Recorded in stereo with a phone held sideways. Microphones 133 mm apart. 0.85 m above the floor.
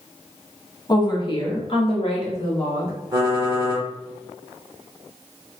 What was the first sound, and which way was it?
A woman speaking, 30° left (ahead or behind).